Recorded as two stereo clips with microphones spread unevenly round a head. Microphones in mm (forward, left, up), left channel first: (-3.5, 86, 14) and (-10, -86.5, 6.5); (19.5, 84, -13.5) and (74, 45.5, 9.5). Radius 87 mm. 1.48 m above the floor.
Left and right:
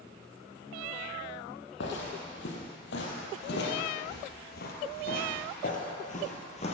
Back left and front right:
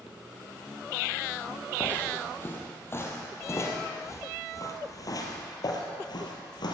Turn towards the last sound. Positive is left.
turn(degrees=135)